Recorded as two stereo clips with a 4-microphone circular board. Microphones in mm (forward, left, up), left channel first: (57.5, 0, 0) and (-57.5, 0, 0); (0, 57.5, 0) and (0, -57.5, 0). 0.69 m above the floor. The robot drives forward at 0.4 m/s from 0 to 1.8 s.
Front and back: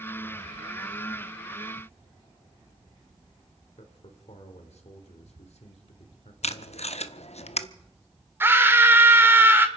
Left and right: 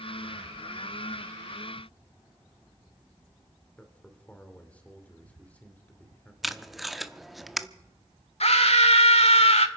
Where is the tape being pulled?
Straight ahead, 0.7 m.